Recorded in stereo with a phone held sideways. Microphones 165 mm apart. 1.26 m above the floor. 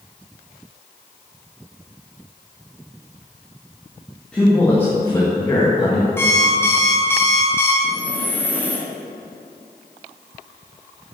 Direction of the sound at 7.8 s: 10° left (ahead or behind).